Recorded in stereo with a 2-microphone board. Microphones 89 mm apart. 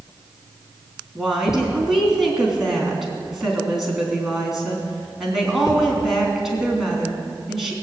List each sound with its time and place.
1.1 s a woman speaking: 5° right (ahead or behind), 3.5 m